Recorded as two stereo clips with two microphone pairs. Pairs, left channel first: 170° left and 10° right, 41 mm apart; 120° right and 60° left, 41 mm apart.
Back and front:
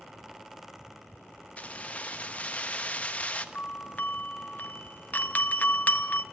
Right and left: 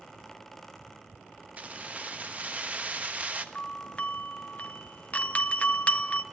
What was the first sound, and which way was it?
Keys jangling, 110° left.